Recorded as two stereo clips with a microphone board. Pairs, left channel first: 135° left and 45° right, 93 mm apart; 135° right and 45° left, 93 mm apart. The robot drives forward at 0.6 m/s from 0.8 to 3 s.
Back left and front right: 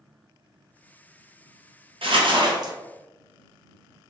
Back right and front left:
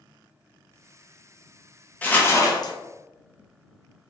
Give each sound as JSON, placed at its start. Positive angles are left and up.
{"t": 2.0, "sound": "crumpling", "azimuth_deg": -60, "distance_m": 0.8}